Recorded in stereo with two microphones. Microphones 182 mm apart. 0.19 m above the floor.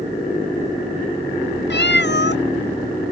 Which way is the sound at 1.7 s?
70° left (ahead or behind).